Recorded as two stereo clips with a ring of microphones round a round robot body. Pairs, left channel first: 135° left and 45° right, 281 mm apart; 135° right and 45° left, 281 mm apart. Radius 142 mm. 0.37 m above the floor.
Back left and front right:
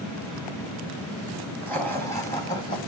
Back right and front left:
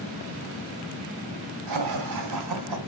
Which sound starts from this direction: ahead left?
Laughter, at 1.7 s.